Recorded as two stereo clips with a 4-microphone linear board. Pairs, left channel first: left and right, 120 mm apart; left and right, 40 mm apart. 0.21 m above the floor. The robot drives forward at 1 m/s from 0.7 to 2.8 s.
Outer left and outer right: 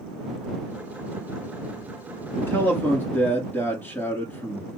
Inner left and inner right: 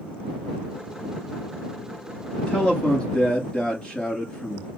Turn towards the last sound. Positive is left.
turn(degrees=20)  # may be behind; listen again after turning